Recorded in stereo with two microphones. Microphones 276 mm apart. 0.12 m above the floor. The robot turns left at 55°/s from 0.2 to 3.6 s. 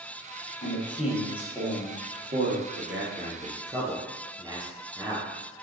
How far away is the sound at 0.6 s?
About 2.5 m.